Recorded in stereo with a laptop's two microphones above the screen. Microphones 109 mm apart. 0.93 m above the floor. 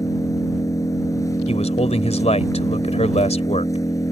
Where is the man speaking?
85° left.